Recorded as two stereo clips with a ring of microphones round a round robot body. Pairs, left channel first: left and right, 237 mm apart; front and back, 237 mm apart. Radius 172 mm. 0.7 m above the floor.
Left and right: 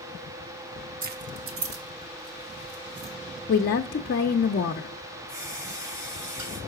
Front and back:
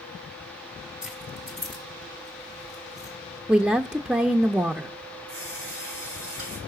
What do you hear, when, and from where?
1.0 s keys jangling: 95° right, 0.5 m; by 3.1 s 100° right, 2 m
3.5 s a woman speaking: 100° left, 0.6 m
5.3 s a running tap: 145° right, 5 m